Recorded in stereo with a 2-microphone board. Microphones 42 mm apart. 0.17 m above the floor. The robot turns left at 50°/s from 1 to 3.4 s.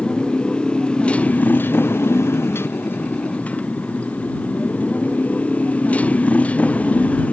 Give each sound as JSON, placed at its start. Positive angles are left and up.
{"t": 0.0, "sound": "a motorcycle", "azimuth_deg": 155}